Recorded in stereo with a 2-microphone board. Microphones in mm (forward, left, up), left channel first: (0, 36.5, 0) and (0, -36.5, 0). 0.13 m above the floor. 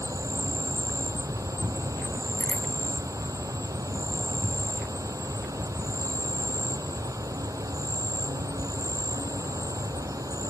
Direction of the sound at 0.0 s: 50° right (ahead or behind).